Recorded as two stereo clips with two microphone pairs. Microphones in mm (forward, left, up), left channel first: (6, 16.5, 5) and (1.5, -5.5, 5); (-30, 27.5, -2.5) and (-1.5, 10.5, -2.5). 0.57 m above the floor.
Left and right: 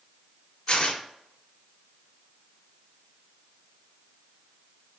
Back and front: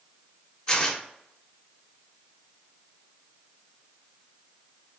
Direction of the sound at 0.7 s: 80° left.